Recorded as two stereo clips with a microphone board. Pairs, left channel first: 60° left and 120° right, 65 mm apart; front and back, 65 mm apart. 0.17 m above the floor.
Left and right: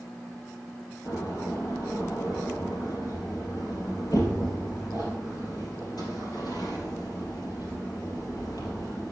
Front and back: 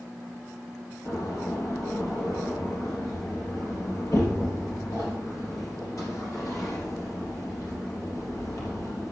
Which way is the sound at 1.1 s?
35° left.